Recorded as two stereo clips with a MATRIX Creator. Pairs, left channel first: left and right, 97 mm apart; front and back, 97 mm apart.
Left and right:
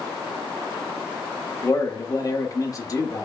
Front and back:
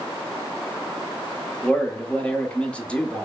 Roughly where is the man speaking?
Left.